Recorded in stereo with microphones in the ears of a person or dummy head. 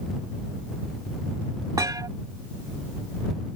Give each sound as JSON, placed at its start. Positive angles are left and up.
{"t": 1.8, "sound": "a thud", "side_deg": -20}